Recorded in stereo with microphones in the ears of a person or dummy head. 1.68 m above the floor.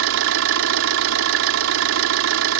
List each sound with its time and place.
0.0 s an engine running: 75° right (ahead or behind)